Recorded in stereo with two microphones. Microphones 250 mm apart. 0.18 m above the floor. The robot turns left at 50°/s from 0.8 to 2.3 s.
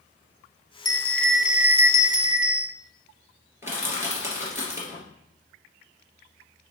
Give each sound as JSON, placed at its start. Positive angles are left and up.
{"t": 0.8, "sound": "a bell", "azimuth_deg": 25, "distance_m": 0.7}
{"t": 3.6, "sound": "crushing", "side_deg": -10, "distance_m": 2.5}